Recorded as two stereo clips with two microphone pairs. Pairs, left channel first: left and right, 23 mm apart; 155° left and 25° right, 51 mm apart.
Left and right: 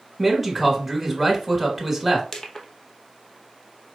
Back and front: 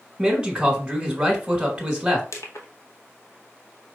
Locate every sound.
0.2 s a man speaking: 10° left, 1.4 m
2.3 s crushing: 150° left, 0.9 m